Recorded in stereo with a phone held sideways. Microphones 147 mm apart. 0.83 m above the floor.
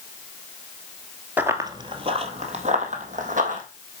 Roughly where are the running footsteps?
Centre.